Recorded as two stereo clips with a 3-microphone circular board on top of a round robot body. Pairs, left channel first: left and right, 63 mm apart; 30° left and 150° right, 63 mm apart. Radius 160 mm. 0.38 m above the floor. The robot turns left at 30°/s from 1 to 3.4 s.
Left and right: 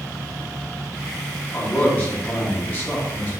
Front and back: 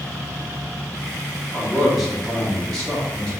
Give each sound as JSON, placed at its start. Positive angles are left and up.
{"t": 1.5, "sound": "a man speaking", "azimuth_deg": 140, "distance_m": 1.1}